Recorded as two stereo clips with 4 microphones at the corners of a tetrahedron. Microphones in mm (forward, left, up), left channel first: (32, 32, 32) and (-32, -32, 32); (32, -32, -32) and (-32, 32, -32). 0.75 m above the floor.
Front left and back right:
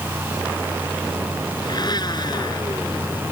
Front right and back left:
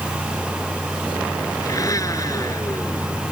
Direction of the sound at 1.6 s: 5° left.